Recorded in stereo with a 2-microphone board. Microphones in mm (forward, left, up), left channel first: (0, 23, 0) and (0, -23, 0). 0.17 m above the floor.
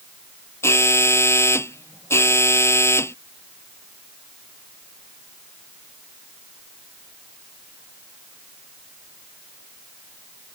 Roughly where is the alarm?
Left.